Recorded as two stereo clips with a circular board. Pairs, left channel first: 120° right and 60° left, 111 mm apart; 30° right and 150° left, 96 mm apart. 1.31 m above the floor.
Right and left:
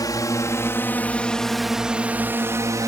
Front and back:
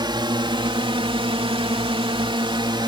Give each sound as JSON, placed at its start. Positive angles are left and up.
{"t": 0.0, "sound": "a drone", "azimuth_deg": -175}